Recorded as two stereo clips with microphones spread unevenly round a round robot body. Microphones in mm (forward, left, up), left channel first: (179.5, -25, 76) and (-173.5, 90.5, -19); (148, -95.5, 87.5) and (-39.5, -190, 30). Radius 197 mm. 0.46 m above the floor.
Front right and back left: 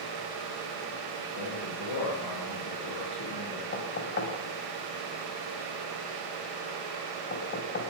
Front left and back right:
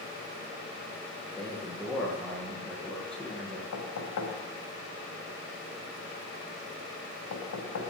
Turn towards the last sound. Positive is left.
turn(degrees=50)